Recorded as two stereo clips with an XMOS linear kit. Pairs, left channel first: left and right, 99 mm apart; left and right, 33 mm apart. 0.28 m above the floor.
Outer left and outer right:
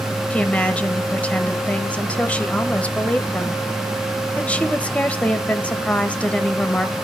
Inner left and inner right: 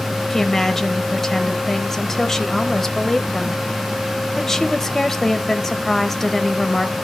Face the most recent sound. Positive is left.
turn(degrees=15)  # may be behind; listen again after turning